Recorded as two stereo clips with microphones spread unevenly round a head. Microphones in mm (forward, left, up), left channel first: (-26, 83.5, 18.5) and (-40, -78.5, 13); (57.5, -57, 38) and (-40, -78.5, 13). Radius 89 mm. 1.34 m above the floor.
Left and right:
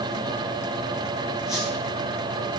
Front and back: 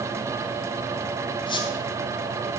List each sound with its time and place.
1.5 s a squeak: 5° right, 2.5 m